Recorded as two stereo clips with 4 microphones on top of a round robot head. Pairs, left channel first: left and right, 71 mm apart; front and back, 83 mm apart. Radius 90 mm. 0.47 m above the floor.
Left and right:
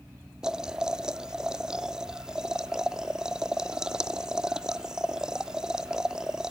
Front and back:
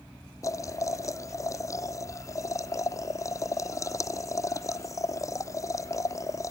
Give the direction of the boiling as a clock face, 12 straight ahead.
12 o'clock.